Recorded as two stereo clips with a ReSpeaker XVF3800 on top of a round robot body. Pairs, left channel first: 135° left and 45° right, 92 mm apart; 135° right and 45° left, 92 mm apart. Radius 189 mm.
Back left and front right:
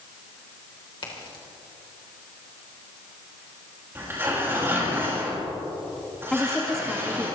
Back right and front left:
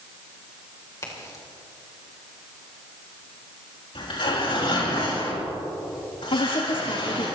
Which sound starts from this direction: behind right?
A woman speaking, at 6.3 s.